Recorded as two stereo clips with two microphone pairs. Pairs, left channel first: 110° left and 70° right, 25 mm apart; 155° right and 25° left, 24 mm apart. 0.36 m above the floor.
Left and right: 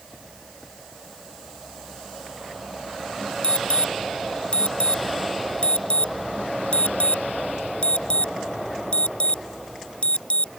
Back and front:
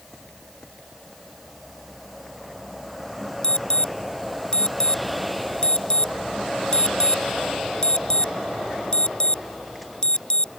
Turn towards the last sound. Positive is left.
turn(degrees=155)